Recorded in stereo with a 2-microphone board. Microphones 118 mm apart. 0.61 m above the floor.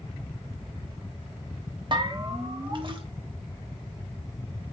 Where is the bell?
40° right (ahead or behind), 1.1 m.